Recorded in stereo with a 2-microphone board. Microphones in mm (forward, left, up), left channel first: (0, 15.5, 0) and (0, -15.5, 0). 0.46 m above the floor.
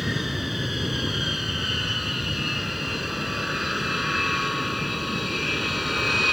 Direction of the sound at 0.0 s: 5° right (ahead or behind).